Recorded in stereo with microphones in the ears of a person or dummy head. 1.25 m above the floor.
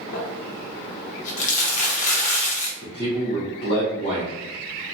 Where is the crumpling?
40° left (ahead or behind), 0.7 m.